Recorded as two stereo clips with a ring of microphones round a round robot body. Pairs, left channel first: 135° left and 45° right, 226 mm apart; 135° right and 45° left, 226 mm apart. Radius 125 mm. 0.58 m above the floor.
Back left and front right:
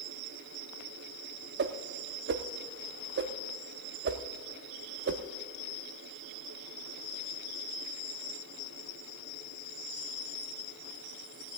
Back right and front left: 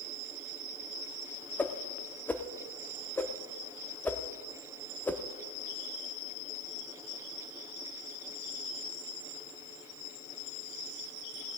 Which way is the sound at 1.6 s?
55° right.